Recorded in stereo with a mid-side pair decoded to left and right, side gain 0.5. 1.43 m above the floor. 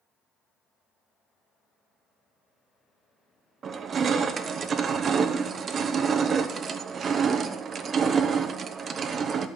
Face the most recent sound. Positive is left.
turn(degrees=-45)